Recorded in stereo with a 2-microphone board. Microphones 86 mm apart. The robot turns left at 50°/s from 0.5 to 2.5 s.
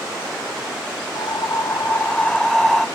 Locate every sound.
1.1 s breathing: 70° left, 0.7 m; by 2.9 s 5° left, 0.7 m